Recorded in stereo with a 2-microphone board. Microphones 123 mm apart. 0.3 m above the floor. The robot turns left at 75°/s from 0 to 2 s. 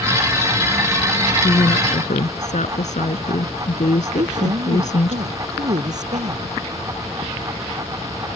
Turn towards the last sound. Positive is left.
turn(degrees=-70)  # may be behind; listen again after turning